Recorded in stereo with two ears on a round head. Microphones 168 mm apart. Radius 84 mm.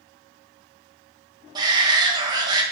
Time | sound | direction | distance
1.6 | a shout | 20° right (ahead or behind) | 1.5 m